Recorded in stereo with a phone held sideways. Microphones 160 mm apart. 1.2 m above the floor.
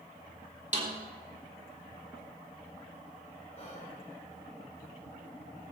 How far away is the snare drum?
About 3 m.